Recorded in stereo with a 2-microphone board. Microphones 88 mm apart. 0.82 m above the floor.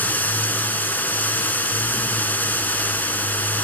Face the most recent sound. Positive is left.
turn(degrees=20)  # may be behind; listen again after turning